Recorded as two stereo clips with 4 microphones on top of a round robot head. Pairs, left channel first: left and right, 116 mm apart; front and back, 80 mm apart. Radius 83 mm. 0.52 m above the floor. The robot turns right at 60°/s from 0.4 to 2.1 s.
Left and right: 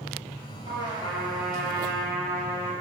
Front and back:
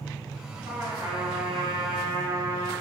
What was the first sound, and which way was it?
A trumpet, 130° left.